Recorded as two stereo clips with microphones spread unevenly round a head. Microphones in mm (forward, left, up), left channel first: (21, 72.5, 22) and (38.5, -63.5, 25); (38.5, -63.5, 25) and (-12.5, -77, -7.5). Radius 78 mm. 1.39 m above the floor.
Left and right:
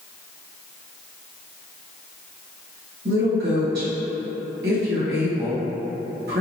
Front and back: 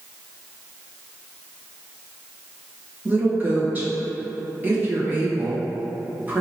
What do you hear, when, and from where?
3.0 s a woman speaking: 110° right, 1.3 m